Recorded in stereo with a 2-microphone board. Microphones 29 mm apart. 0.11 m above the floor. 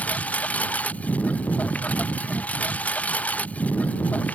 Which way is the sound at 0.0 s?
60° left (ahead or behind).